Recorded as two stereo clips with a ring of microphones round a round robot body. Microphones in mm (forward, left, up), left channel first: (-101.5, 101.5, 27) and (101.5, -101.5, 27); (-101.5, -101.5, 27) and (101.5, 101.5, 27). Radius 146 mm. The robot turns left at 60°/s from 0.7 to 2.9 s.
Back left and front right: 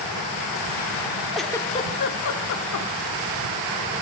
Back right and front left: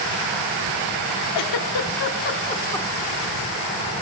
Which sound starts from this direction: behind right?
A giggle, at 1.4 s.